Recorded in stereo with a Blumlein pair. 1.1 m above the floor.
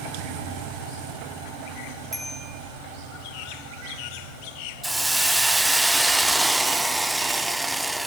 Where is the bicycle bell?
5° right, 5 m.